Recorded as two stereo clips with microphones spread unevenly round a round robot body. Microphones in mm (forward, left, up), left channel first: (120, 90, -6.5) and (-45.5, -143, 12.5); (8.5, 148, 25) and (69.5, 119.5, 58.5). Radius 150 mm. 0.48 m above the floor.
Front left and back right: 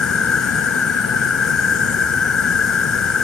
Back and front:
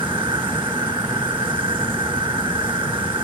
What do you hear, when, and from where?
0.0 s an insect: 35° right